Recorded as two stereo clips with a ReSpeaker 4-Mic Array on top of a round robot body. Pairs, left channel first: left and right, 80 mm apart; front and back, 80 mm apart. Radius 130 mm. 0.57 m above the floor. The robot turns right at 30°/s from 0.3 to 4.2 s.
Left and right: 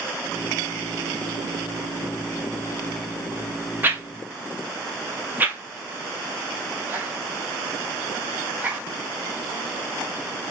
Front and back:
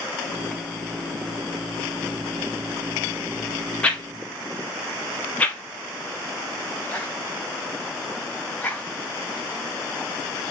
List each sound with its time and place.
3.8 s a whoosh: 60° right, 1.1 m; by 10.5 s 50° right, 1.1 m